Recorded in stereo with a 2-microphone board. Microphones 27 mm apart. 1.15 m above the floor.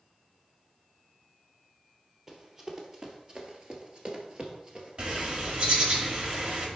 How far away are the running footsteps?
About 1.7 m.